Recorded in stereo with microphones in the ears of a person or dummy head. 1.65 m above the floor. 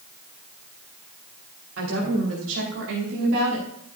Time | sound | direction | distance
1.8 | a woman speaking | 80° right | 5 m